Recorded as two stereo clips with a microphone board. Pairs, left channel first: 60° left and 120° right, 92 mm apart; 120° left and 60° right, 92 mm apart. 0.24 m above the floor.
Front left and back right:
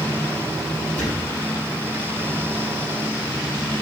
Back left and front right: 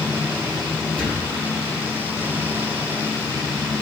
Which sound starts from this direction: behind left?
A thud, at 1.0 s.